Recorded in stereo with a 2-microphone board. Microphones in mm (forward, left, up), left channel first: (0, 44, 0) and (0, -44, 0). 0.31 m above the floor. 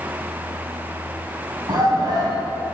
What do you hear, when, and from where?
1.7 s a shout: 50° right (ahead or behind), 2.5 m